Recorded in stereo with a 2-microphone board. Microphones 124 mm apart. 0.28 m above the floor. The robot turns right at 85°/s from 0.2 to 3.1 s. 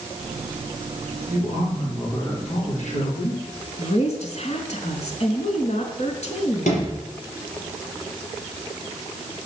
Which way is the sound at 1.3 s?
65° right.